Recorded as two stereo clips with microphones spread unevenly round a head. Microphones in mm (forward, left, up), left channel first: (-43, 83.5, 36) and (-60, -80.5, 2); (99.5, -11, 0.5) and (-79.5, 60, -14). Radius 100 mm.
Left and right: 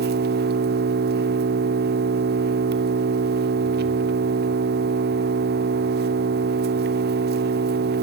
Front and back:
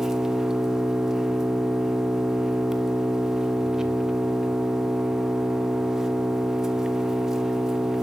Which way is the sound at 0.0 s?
110° right.